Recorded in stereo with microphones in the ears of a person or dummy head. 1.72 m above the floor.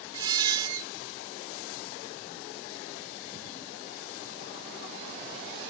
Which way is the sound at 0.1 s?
25° right (ahead or behind).